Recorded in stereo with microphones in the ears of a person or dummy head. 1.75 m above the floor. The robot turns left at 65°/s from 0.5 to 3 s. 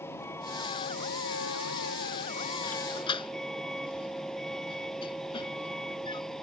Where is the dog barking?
50° left (ahead or behind); by 6.2 s 25° left (ahead or behind).